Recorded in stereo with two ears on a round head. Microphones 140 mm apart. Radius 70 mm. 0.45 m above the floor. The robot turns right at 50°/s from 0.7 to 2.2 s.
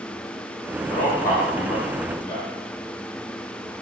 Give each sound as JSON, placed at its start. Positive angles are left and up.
{"t": 0.9, "sound": "a man speaking", "side_deg": 55, "distance_m": 1.5}